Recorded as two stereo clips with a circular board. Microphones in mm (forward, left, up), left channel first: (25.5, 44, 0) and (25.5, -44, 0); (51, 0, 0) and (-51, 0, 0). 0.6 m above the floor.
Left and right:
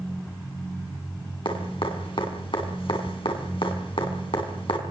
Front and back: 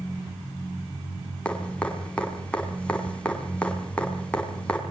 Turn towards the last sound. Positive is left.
turn(degrees=80)